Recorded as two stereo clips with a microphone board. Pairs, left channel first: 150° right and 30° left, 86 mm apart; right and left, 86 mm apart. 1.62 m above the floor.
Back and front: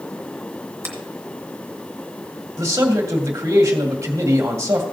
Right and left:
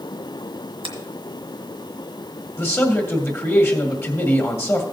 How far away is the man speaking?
About 1.9 m.